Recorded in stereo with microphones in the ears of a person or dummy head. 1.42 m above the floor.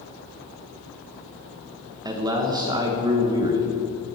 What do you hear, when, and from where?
2.0 s a man speaking: 20° right (ahead or behind), 1.2 m